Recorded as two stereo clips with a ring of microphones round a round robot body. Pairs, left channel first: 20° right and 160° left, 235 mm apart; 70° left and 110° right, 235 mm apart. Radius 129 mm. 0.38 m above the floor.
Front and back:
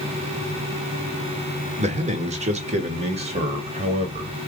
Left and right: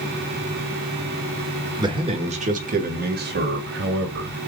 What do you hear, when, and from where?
1.8 s a man speaking: 170° right, 1.1 m; by 4.3 s 140° right, 2 m